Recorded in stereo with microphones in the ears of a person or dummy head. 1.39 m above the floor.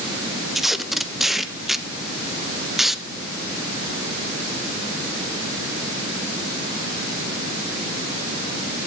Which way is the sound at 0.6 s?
Centre (ahead or behind).